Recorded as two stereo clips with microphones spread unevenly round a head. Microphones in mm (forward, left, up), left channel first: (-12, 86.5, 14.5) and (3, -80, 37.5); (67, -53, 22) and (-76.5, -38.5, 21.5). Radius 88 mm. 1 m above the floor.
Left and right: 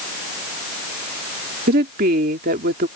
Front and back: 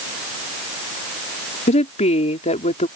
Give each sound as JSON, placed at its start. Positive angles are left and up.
{"t": 1.7, "sound": "a woman speaking", "azimuth_deg": -45}